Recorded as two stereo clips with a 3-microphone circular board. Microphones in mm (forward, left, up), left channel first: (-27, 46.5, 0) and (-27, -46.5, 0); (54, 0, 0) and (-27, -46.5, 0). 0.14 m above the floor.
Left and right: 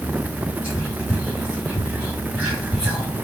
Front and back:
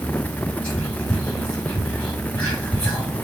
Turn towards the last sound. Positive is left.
turn(degrees=-30)